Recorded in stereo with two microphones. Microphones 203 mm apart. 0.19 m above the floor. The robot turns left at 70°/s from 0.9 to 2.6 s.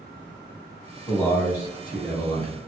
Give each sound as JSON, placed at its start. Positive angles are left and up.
{"t": 1.1, "sound": "a man speaking", "side_deg": 5, "distance_m": 1.2}